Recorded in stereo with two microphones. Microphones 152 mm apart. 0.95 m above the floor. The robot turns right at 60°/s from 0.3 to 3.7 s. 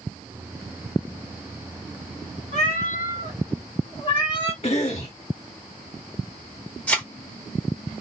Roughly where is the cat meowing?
Ahead left.